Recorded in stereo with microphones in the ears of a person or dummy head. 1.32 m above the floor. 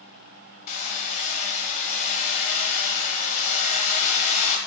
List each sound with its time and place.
0.7 s hammering: 45° left (ahead or behind), 1.7 m